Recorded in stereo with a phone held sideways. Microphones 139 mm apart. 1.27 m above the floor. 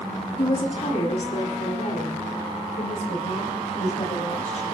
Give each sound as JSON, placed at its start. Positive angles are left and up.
{"t": 0.4, "sound": "a woman speaking", "side_deg": 50, "distance_m": 2.5}